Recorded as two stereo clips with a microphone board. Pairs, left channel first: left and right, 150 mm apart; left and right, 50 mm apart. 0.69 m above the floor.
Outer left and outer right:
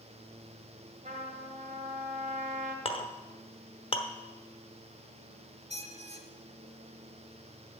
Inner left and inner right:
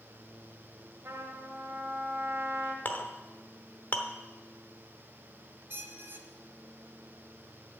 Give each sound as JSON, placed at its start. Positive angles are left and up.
{"t": 1.1, "sound": "a trumpet", "side_deg": -60, "distance_m": 1.5}
{"t": 2.9, "sound": "a clink", "side_deg": 40, "distance_m": 0.9}
{"t": 5.7, "sound": "a squeak", "side_deg": -45, "distance_m": 1.0}